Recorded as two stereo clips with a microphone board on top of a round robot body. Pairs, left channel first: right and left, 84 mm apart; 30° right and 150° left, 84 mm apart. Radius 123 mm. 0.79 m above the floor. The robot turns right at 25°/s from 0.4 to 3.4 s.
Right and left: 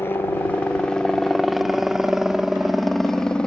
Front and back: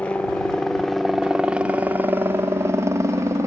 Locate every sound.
0.0 s a helicopter: 85° right; by 3.5 s 170° right